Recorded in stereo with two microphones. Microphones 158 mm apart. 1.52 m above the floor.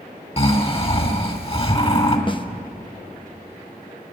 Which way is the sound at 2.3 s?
30° left (ahead or behind).